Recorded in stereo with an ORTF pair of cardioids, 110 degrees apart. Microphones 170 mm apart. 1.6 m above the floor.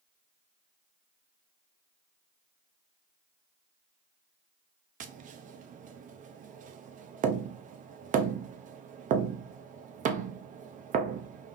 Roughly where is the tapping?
Ahead right.